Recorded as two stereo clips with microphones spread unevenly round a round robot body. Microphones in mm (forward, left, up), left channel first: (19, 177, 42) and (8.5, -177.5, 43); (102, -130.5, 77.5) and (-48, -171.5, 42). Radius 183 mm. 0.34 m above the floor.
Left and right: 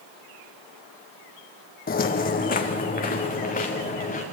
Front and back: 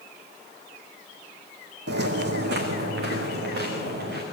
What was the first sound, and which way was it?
Footsteps, 155° left.